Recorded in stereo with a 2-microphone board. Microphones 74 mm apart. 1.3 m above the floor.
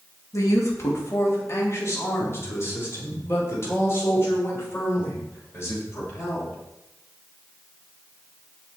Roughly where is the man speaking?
Left.